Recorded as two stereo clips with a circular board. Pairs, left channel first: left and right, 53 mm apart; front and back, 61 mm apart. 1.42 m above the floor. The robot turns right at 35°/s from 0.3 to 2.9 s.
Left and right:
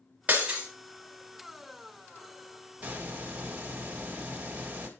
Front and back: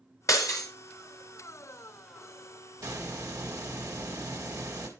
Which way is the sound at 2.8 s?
160° right.